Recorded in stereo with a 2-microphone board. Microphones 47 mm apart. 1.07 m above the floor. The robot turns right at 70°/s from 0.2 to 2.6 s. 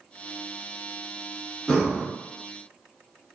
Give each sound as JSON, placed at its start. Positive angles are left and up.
{"t": 1.7, "sound": "breathing", "side_deg": 20, "distance_m": 1.0}